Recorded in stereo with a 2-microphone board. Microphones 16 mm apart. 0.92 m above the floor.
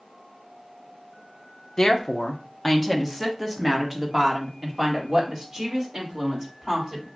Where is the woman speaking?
40° left (ahead or behind), 0.8 m; by 7.1 s 30° right (ahead or behind), 3 m.